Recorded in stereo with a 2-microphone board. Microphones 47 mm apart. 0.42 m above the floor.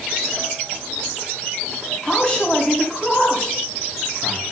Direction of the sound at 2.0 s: 25° left (ahead or behind).